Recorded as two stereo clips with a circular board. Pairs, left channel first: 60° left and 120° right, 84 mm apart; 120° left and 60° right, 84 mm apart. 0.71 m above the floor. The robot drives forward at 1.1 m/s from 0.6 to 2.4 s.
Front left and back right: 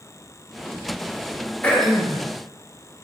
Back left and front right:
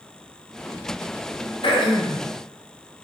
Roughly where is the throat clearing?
Behind left.